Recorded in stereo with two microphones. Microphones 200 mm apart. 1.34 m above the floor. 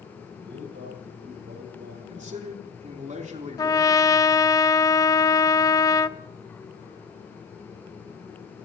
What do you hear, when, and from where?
0.4 s a man speaking: 70° right (ahead or behind), 7.5 m
2.1 s a man speaking: 40° right (ahead or behind), 3.5 m
3.6 s a trumpet: 20° left (ahead or behind), 0.5 m